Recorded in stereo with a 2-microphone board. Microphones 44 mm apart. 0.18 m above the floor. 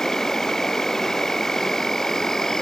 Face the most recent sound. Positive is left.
turn(degrees=10)  # may be behind; listen again after turning